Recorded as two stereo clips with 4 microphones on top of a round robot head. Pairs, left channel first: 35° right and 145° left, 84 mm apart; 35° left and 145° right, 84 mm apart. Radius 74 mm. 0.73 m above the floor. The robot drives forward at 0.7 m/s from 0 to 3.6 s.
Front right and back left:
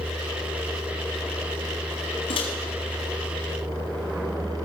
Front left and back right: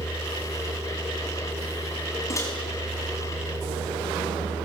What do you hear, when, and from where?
2.3 s a microwave: 20° right, 5 m